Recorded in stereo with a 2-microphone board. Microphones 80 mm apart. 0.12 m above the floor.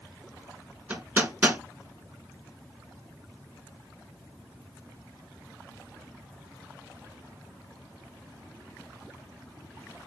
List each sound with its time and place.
0.9 s hammering: 15° right (ahead or behind), 1.3 m